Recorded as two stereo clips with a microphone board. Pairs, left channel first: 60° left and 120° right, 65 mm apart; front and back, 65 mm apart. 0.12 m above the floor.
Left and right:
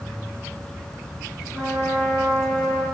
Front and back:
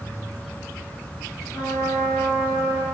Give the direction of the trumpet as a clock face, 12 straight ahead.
1 o'clock.